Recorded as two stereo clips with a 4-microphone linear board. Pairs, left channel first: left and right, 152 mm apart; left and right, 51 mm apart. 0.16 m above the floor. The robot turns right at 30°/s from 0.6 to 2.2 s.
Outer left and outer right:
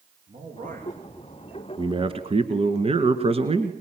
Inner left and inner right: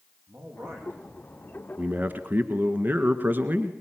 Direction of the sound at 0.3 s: 60° right (ahead or behind).